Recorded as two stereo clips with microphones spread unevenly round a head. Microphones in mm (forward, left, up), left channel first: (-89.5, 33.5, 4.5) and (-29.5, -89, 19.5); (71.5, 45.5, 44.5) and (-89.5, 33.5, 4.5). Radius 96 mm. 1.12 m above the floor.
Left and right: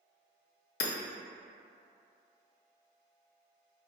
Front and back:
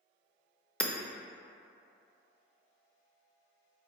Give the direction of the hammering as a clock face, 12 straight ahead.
9 o'clock.